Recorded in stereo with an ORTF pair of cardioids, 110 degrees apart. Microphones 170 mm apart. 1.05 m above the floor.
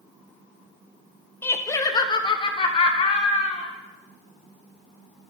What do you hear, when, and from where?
1.4 s laughter: 15° left, 0.9 m; by 3.7 s 40° left, 2.0 m